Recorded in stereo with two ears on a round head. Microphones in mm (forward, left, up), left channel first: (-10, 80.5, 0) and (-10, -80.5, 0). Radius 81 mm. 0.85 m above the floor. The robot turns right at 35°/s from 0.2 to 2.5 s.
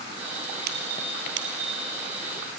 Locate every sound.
0.7 s a squeak: 60° right (ahead or behind), 2.5 m; by 1.8 s 65° right (ahead or behind), 2.5 m